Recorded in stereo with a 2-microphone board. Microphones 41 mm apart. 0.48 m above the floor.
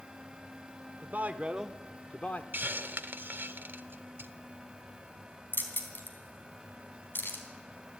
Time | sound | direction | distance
1.0 | a man speaking | 50° right (ahead or behind) | 1.4 m
2.5 | a hiss | 55° right (ahead or behind) | 0.8 m
5.5 | keys jangling | 55° left (ahead or behind) | 3 m